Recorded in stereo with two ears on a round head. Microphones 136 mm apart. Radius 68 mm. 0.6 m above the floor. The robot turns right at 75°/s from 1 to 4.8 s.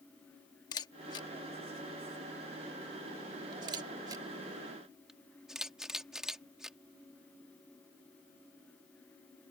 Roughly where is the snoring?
I don't hear snoring.